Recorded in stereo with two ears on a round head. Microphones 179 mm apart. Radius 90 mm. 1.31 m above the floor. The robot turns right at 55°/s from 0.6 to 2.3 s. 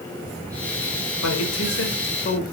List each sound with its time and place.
1.2 s a man speaking: 80° left, 4.5 m; by 2.4 s 140° left, 4.5 m